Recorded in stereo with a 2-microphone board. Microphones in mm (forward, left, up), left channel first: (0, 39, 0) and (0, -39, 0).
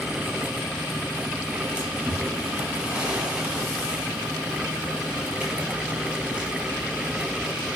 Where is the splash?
15° right (ahead or behind), 6 m.